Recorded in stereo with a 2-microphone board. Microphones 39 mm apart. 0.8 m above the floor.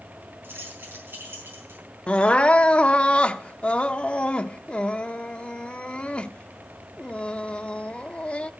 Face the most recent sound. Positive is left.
turn(degrees=30)  # may be behind; listen again after turning